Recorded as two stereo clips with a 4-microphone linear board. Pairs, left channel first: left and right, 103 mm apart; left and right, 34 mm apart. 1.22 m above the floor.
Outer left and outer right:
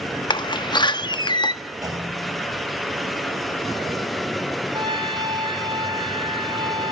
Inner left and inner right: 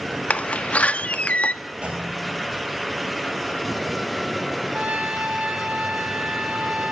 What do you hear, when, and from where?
0.3 s a door slam: 45° left (ahead or behind), 1.0 m
1.8 s a clunk: 35° right (ahead or behind), 7 m
4.7 s a trumpet: 50° right (ahead or behind), 3.5 m